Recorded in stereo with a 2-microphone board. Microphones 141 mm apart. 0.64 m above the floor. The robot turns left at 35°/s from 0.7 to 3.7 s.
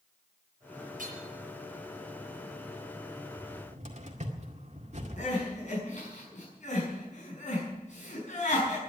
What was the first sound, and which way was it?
Hammering, 75° right (ahead or behind).